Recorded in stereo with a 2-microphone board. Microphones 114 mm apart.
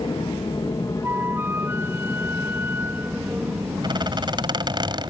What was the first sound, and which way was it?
An aircraft, 45° left (ahead or behind).